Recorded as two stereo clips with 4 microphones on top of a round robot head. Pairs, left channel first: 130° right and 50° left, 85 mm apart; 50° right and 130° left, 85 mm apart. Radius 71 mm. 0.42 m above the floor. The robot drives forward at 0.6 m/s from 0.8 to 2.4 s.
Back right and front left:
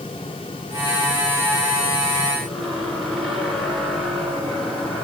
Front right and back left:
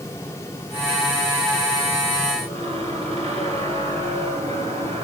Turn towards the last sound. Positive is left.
turn(degrees=140)